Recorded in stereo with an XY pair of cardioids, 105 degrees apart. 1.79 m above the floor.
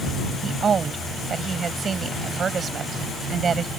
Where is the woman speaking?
40° right.